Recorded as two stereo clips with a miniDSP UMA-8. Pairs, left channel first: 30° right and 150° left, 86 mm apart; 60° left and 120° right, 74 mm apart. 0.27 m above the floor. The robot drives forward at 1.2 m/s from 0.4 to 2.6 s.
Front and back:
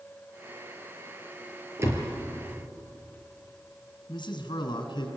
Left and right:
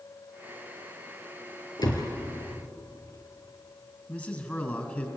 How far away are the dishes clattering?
No dishes clattering in this recording.